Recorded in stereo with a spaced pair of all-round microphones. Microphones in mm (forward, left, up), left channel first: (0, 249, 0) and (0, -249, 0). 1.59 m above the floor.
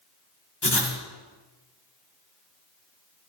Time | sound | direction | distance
0.6 | writing | 55° left (ahead or behind) | 2 m